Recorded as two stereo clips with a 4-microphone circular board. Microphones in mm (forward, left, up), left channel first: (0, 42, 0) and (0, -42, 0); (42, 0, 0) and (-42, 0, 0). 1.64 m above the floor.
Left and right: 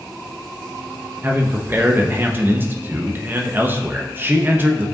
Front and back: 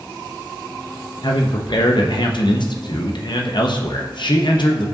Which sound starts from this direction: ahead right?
A man speaking, at 1.2 s.